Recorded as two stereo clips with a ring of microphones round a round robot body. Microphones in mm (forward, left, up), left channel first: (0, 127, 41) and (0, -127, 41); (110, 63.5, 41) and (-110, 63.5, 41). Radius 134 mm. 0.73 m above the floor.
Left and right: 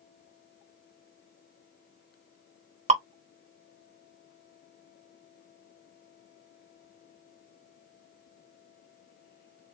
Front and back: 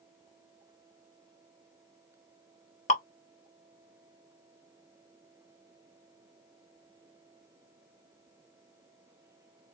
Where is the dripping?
40° right, 0.8 m.